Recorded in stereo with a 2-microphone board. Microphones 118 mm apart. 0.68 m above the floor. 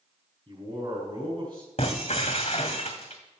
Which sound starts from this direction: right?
A man speaking, at 0.5 s.